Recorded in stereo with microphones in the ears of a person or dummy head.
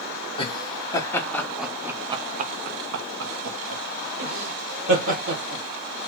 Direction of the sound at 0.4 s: 20° left (ahead or behind).